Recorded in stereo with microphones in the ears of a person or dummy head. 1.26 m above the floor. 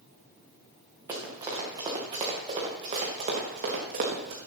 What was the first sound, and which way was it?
Running footsteps, 10° right (ahead or behind).